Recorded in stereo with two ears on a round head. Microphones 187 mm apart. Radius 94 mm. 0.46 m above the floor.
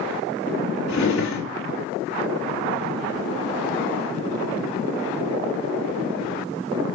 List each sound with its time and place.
0.9 s a drawer: 70° left (ahead or behind), 2 m